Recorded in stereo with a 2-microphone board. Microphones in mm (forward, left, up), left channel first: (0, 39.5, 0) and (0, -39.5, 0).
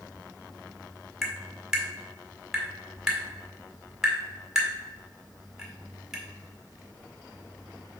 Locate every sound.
1.2 s tapping: 5° right (ahead or behind), 1.6 m